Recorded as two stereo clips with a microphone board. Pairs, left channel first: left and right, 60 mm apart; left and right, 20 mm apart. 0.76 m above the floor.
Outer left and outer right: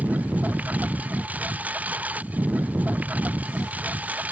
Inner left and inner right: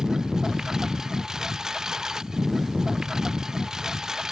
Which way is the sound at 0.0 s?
25° right (ahead or behind).